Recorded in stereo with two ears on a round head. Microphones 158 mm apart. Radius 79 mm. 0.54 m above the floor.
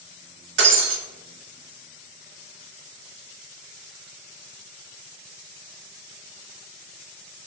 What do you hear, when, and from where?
0.6 s breaking glass: 80° right, 0.8 m